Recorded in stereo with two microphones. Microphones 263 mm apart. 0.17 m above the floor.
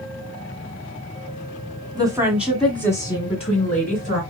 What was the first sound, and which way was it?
A woman speaking, 15° right (ahead or behind).